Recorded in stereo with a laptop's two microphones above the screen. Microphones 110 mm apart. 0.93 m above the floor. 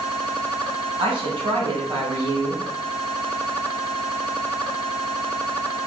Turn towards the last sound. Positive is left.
turn(degrees=-45)  # may be behind; listen again after turning